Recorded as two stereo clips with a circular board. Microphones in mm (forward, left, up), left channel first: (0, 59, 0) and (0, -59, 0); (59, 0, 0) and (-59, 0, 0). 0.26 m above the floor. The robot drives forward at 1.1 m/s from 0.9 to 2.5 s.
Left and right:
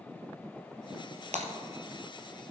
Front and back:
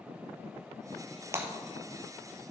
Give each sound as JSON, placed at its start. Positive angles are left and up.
{"t": 1.3, "sound": "breaking glass", "azimuth_deg": -110, "distance_m": 1.4}